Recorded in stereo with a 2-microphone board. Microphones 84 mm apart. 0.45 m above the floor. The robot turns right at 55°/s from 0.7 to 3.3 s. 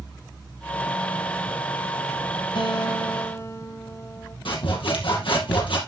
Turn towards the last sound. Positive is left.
turn(degrees=75)  # may be behind; listen again after turning